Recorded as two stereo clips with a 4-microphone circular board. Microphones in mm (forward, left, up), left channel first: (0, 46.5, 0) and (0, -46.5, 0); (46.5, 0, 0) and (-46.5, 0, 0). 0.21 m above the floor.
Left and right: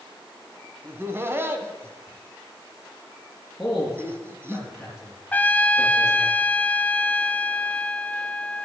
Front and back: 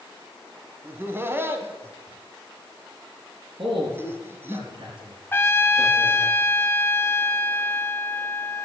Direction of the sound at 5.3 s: 35° left.